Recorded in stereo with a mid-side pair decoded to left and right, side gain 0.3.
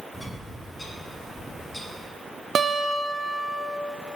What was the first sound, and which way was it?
A bird, 25° left.